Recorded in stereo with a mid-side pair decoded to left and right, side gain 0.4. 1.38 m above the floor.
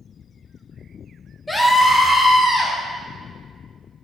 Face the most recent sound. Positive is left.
turn(degrees=30)